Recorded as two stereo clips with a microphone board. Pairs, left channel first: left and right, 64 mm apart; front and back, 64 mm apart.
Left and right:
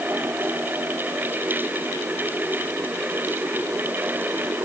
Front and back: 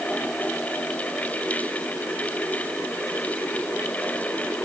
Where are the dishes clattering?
I don't hear dishes clattering.